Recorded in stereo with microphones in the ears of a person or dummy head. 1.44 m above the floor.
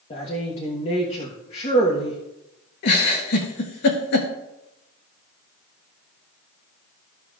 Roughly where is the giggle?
Left.